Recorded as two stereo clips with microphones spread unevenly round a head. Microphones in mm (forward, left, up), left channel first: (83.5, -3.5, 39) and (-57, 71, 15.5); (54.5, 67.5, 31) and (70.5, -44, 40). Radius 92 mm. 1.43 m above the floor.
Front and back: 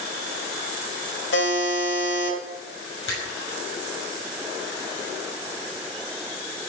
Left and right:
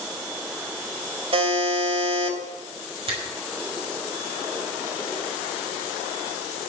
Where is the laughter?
No laughter in this recording.